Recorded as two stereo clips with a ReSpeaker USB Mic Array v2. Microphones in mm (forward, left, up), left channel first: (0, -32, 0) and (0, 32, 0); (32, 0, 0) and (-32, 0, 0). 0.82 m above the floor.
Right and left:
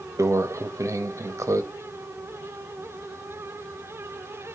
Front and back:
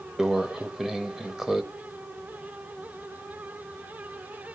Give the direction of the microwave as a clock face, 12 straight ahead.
9 o'clock.